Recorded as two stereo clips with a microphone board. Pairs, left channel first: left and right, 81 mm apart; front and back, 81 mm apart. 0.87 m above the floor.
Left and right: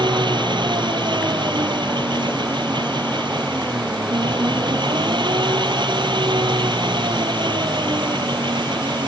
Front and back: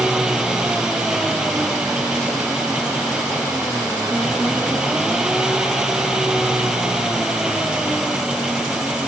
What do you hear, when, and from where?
0.0 s an engine running: 100° right